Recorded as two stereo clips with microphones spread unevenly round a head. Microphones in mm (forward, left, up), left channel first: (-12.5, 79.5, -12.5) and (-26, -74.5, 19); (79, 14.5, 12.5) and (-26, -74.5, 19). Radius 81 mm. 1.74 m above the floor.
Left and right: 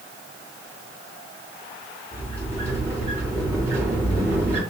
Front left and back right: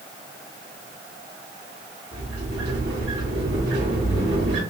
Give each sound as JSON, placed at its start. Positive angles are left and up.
{"t": 2.1, "sound": "a sliding door", "azimuth_deg": -170, "distance_m": 3.0}